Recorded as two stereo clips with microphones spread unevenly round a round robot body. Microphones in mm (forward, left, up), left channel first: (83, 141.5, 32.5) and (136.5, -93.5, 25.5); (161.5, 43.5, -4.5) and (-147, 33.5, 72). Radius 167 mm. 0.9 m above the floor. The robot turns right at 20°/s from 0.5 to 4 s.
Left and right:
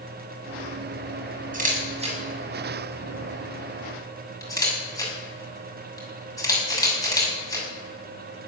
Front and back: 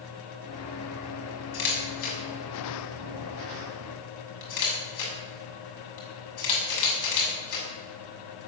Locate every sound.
1.5 s a camera shutter: 20° right, 6.5 m; by 7.7 s 25° left, 6.5 m